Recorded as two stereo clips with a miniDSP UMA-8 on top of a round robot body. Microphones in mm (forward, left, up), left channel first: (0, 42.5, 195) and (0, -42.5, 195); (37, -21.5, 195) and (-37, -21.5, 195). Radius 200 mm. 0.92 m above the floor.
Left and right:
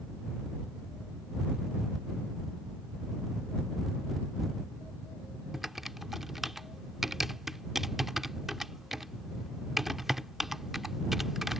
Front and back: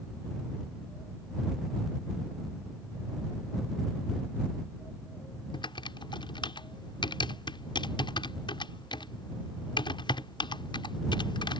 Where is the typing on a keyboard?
5° right.